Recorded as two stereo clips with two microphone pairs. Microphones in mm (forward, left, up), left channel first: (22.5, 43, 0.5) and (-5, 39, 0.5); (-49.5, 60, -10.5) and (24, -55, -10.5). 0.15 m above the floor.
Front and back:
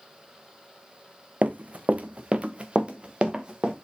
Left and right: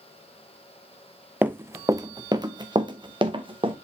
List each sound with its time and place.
1.4 s running footsteps: 135° right, 0.7 m; by 3.7 s 110° right, 1.8 m